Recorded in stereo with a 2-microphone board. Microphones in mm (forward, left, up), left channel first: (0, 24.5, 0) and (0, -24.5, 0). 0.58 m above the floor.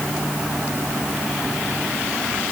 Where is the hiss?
No hiss in this recording.